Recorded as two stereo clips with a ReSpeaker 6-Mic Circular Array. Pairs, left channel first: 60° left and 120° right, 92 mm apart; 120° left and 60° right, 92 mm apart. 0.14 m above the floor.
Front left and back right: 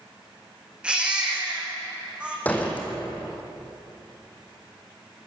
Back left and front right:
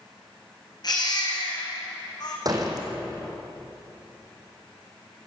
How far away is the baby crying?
About 4.5 m.